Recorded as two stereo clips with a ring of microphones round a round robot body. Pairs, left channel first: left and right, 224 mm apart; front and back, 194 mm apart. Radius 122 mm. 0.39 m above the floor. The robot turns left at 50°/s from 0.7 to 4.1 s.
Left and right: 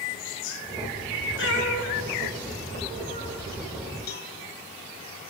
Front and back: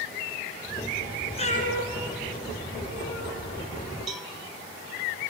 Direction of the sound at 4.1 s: 95° left.